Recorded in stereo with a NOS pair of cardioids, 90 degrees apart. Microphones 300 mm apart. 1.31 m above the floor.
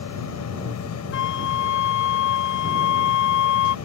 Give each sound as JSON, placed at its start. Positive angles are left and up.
{"t": 0.0, "sound": "a machine running", "azimuth_deg": 60}
{"t": 1.1, "sound": "a flute", "azimuth_deg": 65}